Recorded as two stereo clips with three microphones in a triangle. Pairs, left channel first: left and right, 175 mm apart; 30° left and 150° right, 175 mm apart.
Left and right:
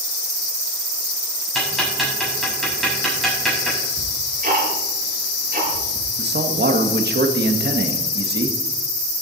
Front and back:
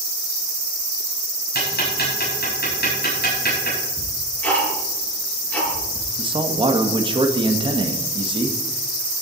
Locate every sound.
1.6 s ticking: straight ahead, 6.5 m
4.0 s ticking: 50° right, 6 m
6.2 s a man speaking: 90° right, 1.6 m